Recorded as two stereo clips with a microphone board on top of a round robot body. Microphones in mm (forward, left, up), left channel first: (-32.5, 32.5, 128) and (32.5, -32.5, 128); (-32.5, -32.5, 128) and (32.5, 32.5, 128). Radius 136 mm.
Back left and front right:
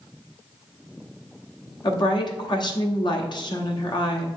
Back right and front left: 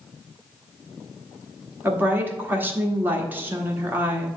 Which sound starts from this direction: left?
A woman speaking, at 1.8 s.